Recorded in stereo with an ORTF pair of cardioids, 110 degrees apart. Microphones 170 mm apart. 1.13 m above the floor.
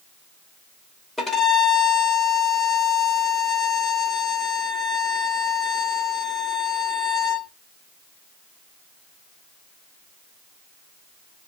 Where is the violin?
Straight ahead, 1.4 m.